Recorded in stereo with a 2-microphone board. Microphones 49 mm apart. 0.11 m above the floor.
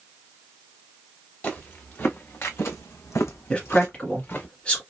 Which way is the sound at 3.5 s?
25° left (ahead or behind).